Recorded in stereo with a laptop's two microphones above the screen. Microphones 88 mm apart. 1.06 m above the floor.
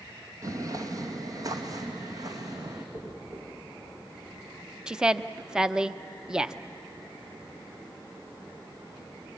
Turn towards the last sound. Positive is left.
turn(degrees=-10)  # may be behind; listen again after turning